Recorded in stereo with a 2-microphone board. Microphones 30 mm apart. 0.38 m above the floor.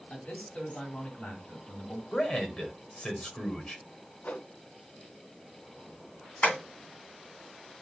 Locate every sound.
0.1 s a man speaking: 60° left (ahead or behind), 2.5 m
2.1 s a man speaking: 35° left (ahead or behind), 1.6 m
4.2 s a whoosh: 75° left (ahead or behind), 0.6 m
6.4 s tapping: 70° left (ahead or behind), 3 m